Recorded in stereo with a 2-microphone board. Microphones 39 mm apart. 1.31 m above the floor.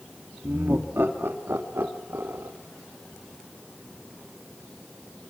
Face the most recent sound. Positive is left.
turn(degrees=-75)  # may be behind; listen again after turning